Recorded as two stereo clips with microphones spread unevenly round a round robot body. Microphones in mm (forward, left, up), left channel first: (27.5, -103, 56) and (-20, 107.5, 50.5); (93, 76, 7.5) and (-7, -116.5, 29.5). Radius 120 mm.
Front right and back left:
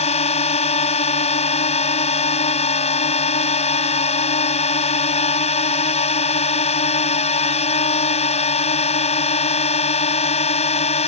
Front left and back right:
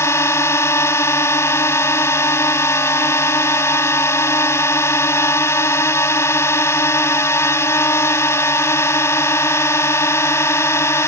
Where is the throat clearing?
I don't hear throat clearing.